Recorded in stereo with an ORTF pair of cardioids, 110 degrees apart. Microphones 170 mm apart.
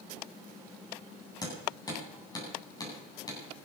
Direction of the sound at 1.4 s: 25° left.